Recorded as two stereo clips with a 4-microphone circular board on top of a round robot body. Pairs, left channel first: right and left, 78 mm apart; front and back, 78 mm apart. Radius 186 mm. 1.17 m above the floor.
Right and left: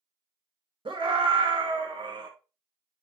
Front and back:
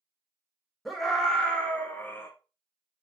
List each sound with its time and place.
0.8 s a scream: 90° left, 2 m; by 2.3 s 65° left, 1.7 m